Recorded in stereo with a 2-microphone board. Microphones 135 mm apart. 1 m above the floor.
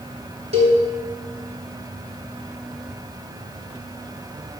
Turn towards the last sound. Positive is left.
turn(degrees=-50)  # may be behind; listen again after turning